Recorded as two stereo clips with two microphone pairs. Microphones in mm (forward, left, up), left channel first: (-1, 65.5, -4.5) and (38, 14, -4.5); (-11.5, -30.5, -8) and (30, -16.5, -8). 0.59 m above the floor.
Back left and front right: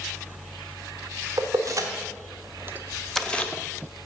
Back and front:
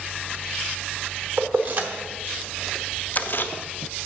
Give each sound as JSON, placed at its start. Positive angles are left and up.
{"t": 1.4, "sound": "keys jangling", "azimuth_deg": -25, "distance_m": 1.4}